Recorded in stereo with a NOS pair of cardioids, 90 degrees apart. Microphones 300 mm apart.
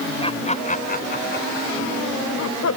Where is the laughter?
20° left; by 2.8 s 60° left.